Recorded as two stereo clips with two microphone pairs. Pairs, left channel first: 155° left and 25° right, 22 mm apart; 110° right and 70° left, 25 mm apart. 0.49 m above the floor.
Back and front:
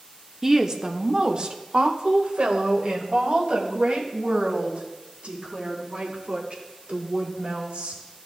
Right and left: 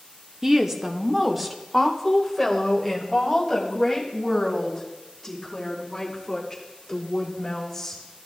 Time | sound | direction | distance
0.4 | a woman speaking | 20° left | 0.7 m